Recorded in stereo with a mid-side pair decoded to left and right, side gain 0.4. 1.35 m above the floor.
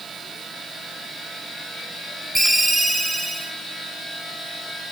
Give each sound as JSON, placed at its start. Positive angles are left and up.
{"t": 2.4, "sound": "a ringtone", "azimuth_deg": -25, "distance_m": 1.6}